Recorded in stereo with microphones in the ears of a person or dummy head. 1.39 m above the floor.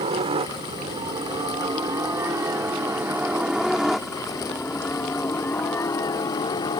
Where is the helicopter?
35° right (ahead or behind); by 6.8 s 25° left (ahead or behind).